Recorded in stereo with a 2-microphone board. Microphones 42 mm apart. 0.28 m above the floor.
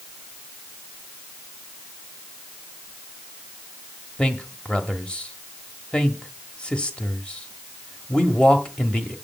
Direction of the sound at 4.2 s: 20° left (ahead or behind).